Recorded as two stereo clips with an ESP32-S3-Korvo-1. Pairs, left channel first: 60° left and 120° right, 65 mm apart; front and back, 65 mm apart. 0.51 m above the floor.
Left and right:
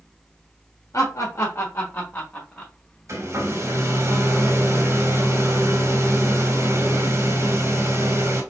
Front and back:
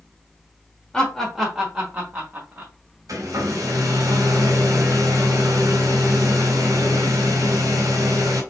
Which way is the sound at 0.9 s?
80° left.